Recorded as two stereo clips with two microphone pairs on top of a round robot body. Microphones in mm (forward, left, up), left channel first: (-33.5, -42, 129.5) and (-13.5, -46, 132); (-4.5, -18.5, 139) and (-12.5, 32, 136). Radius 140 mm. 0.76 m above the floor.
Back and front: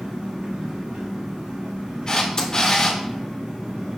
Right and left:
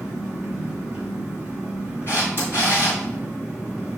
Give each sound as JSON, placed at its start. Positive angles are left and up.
{"t": 0.0, "sound": "an engine running", "azimuth_deg": 25, "distance_m": 1.4}
{"t": 2.1, "sound": "a camera shutter", "azimuth_deg": -125, "distance_m": 1.3}